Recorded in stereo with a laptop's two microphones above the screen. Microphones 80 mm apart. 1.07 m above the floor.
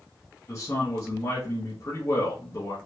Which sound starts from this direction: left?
A man speaking, at 0.5 s.